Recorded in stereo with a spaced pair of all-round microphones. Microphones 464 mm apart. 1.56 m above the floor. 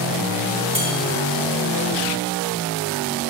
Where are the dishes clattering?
40° right (ahead or behind), 3 m.